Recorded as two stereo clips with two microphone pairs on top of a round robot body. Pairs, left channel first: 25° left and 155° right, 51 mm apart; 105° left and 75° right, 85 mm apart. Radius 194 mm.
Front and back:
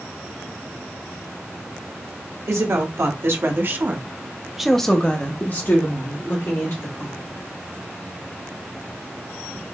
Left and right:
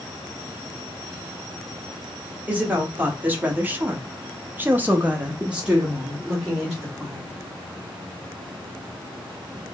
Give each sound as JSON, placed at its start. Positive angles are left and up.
{"t": 2.5, "sound": "a woman speaking", "azimuth_deg": -145, "distance_m": 1.5}